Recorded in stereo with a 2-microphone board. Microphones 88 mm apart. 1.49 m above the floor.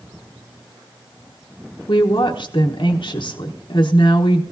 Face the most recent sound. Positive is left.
turn(degrees=70)  # may be behind; listen again after turning